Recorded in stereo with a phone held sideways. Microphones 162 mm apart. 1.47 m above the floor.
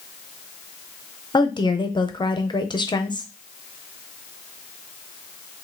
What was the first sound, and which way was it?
A woman speaking, 30° left (ahead or behind).